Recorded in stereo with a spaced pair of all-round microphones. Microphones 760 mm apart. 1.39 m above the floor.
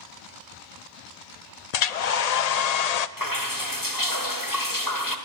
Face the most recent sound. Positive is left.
turn(degrees=25)  # may be behind; listen again after turning